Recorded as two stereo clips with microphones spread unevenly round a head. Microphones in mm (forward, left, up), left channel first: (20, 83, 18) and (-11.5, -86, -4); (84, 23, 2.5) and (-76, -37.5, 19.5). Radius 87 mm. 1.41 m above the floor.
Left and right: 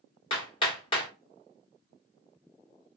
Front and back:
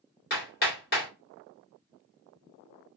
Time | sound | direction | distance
0.3 | hammering | 40° left | 1.2 m